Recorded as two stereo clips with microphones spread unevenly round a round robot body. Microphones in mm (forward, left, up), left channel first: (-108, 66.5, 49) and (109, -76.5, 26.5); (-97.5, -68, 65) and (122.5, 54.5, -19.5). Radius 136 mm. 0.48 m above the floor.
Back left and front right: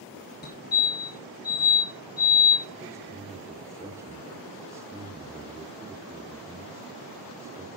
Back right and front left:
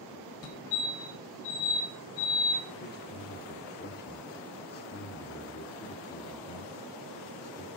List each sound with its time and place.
0.4 s a fire alarm: 170° right, 2.5 m
2.8 s a man speaking: 95° right, 1.1 m